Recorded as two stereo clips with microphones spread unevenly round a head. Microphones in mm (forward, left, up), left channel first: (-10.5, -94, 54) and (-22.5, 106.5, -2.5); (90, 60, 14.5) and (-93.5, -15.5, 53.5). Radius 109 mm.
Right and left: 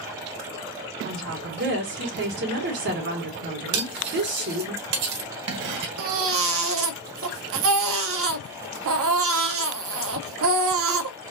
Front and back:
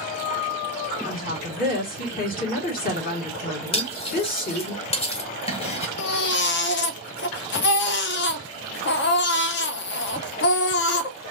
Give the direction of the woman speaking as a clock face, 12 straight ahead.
10 o'clock.